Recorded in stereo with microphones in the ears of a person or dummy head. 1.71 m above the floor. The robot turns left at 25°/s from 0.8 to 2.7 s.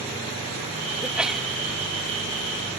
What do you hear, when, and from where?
1.0 s a sneeze: 10° right (ahead or behind); by 1.5 s 5° left (ahead or behind)